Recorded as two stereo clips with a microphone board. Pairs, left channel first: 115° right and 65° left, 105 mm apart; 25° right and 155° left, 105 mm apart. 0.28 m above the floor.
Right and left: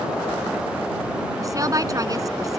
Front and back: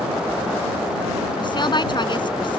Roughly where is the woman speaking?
Ahead.